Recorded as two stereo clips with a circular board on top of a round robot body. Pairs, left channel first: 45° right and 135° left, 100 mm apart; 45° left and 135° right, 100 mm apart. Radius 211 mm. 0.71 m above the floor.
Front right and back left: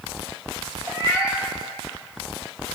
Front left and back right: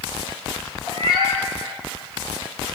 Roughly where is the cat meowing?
Right.